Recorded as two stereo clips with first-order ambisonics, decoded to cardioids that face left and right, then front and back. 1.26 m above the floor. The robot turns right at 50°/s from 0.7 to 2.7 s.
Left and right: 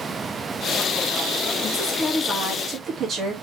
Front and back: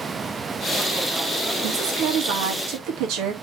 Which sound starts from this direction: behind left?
A woman speaking, at 1.6 s.